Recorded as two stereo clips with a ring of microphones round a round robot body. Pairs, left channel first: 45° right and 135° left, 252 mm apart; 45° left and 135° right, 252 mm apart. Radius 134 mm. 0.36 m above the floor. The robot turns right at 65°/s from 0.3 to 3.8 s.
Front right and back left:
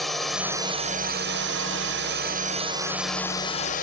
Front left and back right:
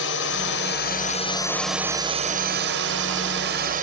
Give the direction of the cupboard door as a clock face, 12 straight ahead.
I don't hear a cupboard door.